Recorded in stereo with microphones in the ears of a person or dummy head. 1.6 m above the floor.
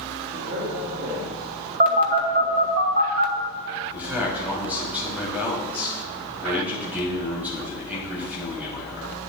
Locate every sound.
0.3 s a man speaking: 60° right (ahead or behind), 2 m
1.8 s a phone buzzing: 50° right (ahead or behind), 1.1 m
3.9 s a man speaking: 5° right (ahead or behind), 3 m